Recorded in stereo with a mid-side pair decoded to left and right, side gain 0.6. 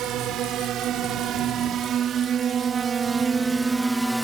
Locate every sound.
0.0 s a drone: 60° right; by 4.2 s 5° right